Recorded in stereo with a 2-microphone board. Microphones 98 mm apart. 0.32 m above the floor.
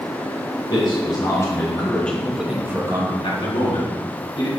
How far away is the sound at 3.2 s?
About 3 m.